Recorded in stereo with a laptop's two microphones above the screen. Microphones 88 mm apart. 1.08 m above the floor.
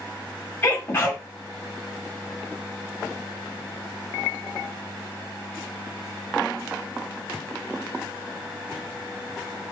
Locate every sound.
0.6 s a sneeze: 25° left (ahead or behind), 1.5 m